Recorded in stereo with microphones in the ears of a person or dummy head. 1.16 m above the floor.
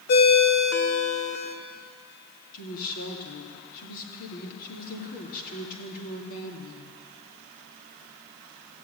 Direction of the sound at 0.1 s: 50° left (ahead or behind).